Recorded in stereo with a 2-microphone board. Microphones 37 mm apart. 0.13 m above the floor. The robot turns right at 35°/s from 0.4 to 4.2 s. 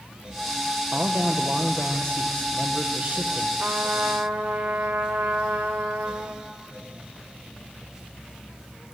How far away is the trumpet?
About 3.5 m.